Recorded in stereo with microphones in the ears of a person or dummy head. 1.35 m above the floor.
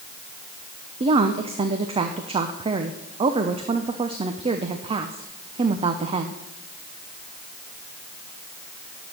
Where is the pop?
No pop in this recording.